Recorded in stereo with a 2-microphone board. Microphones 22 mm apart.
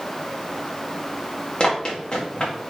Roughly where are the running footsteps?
Left.